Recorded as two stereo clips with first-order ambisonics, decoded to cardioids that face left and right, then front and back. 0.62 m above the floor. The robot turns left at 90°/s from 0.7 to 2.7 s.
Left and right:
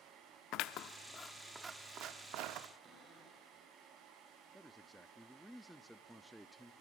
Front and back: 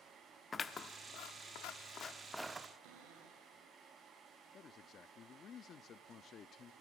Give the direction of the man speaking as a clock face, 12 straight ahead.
12 o'clock.